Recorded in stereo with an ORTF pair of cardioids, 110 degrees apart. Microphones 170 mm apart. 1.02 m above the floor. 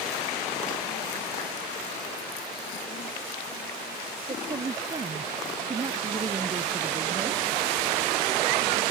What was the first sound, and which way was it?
A woman speaking, 30° right.